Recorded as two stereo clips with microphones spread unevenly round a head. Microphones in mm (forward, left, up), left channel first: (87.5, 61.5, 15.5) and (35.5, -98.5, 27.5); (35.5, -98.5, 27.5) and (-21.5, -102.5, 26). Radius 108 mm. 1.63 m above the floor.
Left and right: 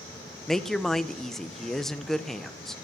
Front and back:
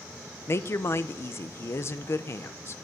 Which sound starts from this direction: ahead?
A woman speaking, at 0.5 s.